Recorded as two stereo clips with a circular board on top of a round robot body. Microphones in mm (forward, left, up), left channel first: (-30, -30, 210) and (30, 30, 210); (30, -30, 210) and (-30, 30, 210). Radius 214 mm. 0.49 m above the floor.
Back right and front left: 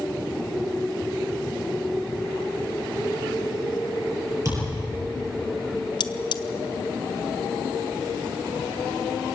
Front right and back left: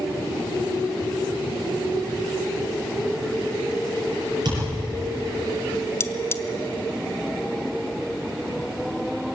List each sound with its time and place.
4.5 s a thud: 95° left, 8 m
6.0 s cutlery clinking: 105° right, 0.8 m